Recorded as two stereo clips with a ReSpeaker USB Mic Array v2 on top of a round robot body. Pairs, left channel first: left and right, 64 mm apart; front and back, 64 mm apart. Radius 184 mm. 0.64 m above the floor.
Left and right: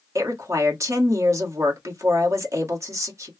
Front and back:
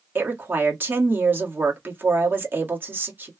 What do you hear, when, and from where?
0.1 s a woman speaking: 125° right, 1.7 m